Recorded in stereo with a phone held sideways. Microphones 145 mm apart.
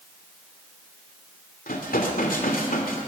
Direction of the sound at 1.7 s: 75° left (ahead or behind).